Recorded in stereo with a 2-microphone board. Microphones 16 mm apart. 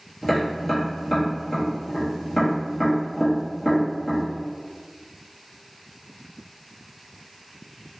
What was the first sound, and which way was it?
Tapping, 20° left (ahead or behind).